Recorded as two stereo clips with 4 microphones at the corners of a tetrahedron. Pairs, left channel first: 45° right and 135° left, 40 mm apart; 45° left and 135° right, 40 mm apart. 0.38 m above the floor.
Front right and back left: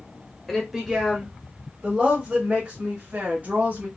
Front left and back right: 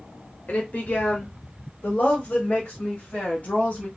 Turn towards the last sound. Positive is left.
turn(degrees=95)